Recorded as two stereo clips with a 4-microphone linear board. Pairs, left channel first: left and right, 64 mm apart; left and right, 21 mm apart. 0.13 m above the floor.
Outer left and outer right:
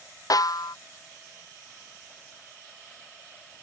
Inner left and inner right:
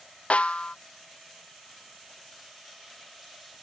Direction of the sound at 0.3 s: 75° left (ahead or behind).